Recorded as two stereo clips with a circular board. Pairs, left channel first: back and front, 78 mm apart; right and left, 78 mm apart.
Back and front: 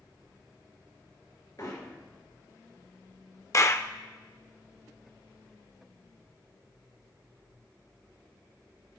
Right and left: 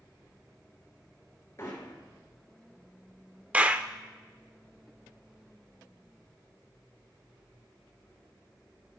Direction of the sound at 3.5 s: 155° left.